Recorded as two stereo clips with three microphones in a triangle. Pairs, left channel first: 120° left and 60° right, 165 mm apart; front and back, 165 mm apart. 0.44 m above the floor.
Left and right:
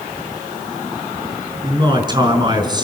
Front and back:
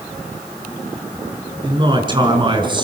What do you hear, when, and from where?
1.6 s a man speaking: 120° right, 6 m